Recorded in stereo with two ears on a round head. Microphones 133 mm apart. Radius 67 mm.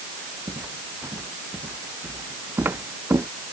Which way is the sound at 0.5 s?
15° right (ahead or behind).